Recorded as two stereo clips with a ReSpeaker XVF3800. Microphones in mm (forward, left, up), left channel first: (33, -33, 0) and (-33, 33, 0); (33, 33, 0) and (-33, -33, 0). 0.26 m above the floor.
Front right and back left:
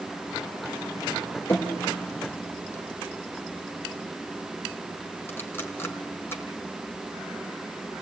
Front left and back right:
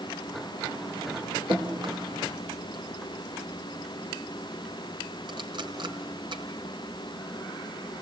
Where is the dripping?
110° right, 3.5 m.